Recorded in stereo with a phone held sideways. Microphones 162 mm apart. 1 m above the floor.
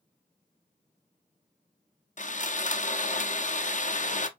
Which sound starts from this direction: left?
Sawing, at 2.2 s.